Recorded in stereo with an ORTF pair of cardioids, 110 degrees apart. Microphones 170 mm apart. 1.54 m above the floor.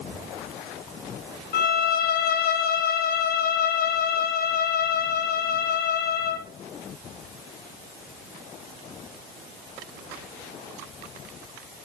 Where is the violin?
65° left, 2.5 m.